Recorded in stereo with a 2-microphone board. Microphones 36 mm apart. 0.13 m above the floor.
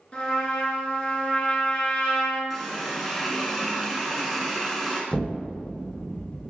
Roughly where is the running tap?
Centre.